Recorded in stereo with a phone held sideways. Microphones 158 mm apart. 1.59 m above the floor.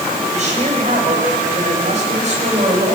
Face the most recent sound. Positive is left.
turn(degrees=-50)  # may be behind; listen again after turning